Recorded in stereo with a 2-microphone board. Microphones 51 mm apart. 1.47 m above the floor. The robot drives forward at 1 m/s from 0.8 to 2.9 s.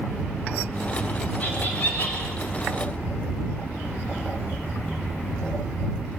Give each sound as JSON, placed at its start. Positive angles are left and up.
{"t": 1.4, "sound": "laughter", "side_deg": 30, "distance_m": 8.0}